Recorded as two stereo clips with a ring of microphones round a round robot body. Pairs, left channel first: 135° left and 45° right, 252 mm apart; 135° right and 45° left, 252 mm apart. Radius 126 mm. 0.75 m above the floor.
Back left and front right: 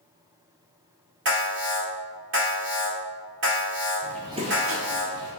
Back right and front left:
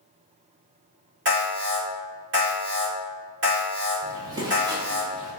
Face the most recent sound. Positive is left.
turn(degrees=-30)